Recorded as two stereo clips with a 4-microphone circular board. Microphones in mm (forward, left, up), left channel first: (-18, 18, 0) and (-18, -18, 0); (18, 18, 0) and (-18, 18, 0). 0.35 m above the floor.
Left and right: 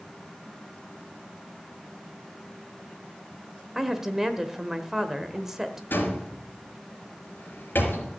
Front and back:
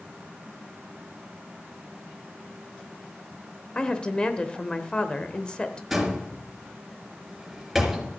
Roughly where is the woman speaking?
Ahead right.